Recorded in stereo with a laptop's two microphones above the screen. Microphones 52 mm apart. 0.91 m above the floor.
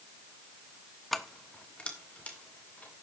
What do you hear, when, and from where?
1.1 s keys jangling: centre (ahead or behind), 0.5 m; by 2.9 s 30° left (ahead or behind), 3 m